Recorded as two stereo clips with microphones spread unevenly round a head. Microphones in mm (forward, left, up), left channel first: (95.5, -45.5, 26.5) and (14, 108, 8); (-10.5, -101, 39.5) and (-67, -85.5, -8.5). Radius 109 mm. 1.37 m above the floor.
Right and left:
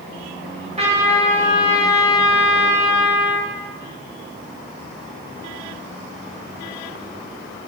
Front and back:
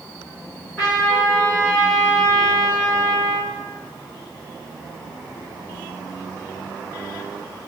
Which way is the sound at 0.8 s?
70° left.